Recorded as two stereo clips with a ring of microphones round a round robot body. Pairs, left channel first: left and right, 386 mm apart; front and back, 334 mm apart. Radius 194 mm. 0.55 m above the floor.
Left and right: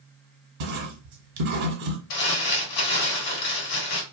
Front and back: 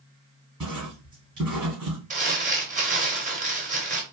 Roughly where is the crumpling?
Behind left.